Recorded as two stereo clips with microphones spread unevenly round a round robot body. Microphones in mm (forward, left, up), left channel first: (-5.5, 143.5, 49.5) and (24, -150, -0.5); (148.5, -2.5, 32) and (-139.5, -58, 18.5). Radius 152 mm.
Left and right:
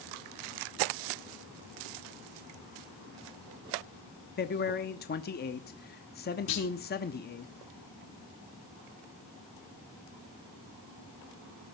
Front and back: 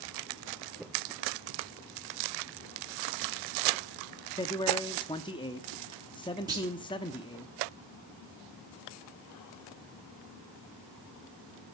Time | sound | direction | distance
4.4 | a man speaking | 65° left | 0.8 m
6.5 | a clunk | 115° left | 5.5 m